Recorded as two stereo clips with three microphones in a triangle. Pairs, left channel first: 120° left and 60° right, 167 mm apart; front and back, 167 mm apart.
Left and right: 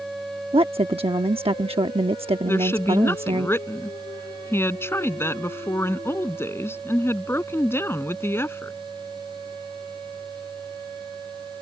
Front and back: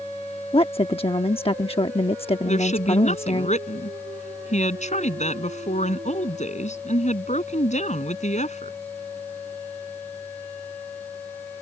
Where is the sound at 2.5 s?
45° left.